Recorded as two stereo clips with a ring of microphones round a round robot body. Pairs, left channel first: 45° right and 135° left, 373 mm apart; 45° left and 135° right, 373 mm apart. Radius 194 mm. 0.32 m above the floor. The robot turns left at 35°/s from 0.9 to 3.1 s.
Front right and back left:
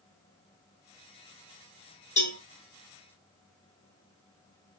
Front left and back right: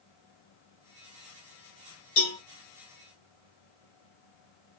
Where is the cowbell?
25° left, 2.5 m; by 2.4 s 15° left, 2.5 m.